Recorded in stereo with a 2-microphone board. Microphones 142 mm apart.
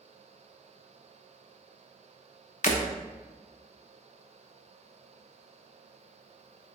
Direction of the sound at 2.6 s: 65° left (ahead or behind).